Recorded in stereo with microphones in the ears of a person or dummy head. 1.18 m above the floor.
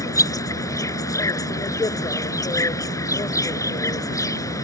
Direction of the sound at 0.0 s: 15° left (ahead or behind).